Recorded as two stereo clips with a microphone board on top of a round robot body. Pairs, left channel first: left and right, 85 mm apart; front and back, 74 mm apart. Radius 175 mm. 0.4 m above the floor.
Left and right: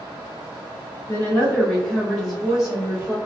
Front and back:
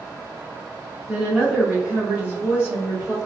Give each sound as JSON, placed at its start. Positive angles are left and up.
{"t": 1.1, "sound": "a woman speaking", "azimuth_deg": 110, "distance_m": 1.4}